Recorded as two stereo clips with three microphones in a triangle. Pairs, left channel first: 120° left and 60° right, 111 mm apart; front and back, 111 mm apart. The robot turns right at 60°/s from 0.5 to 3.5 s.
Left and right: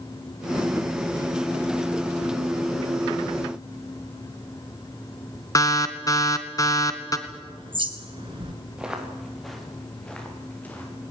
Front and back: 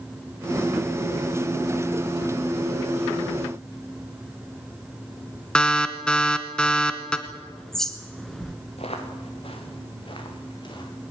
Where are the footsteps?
25° left, 7 m; by 10.9 s 45° left, 7.5 m.